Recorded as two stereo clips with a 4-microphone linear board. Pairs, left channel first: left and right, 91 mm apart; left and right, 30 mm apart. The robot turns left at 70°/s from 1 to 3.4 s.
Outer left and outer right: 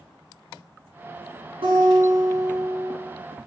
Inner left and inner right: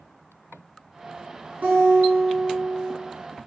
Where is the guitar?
110° right, 6 m; by 2.9 s 165° left, 6 m.